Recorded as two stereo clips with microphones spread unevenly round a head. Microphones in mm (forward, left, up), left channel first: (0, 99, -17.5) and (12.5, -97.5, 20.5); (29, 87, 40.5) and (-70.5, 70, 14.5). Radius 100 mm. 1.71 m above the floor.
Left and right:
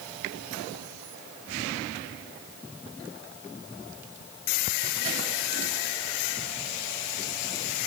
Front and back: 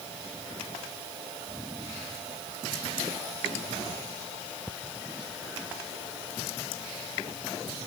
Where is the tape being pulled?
I don't hear tape being pulled.